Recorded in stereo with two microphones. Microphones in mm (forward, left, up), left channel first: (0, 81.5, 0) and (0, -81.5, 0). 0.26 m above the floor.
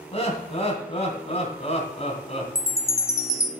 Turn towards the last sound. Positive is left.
turn(degrees=20)  # may be behind; listen again after turning